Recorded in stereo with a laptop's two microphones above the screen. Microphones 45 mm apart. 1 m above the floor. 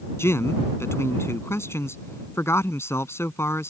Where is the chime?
No chime in this recording.